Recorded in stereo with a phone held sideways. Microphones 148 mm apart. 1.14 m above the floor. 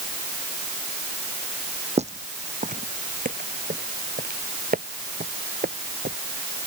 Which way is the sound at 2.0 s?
50° right (ahead or behind).